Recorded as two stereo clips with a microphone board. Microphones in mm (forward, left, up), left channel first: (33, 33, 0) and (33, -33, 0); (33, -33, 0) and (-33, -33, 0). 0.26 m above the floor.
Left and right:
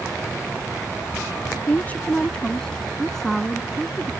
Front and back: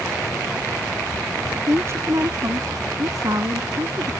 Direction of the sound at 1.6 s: 145° left.